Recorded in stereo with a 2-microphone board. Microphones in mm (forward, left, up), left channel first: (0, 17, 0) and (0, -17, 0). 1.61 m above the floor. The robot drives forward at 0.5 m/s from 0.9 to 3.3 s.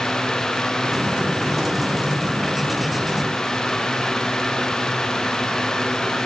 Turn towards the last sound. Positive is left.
No sound to turn to.